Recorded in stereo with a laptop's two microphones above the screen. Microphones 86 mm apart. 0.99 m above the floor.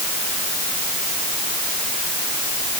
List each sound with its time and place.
Only background noise.